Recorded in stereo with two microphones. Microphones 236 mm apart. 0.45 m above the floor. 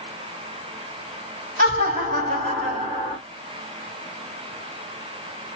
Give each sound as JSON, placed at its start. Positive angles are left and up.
{"t": 1.6, "sound": "laughter", "side_deg": -40, "distance_m": 3.0}